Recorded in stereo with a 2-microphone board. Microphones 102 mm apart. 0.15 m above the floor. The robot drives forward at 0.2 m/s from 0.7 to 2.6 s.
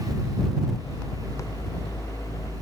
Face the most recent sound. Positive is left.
No sound to turn to.